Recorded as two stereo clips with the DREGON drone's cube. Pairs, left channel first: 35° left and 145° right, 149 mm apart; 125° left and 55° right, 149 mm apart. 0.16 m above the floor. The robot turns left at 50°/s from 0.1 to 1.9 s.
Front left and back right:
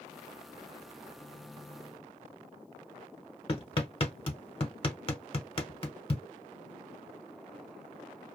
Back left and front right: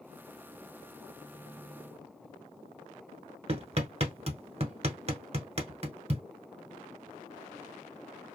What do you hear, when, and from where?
3.5 s hammering: 15° right, 1.2 m